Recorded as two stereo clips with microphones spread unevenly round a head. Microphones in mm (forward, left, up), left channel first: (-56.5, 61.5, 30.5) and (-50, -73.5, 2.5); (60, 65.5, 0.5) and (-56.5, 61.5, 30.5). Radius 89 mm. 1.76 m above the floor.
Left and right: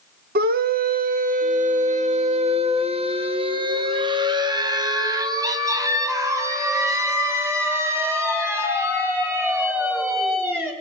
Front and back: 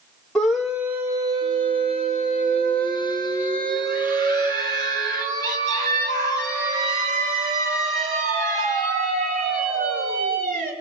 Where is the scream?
85° right, 1.6 m; by 10.7 s 165° right, 7 m.